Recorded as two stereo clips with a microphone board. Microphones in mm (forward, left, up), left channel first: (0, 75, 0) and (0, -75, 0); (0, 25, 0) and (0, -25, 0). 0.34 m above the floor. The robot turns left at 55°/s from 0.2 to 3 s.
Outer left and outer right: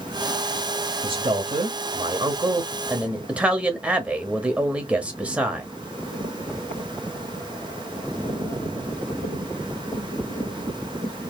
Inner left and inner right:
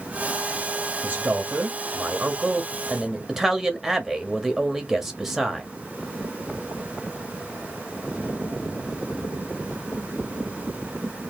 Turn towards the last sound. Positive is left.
turn(degrees=-170)